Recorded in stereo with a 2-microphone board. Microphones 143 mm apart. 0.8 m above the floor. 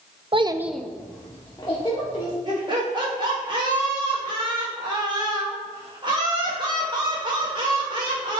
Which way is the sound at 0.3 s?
40° right (ahead or behind).